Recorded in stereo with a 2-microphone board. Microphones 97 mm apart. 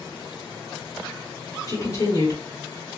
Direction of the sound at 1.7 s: 35° left (ahead or behind).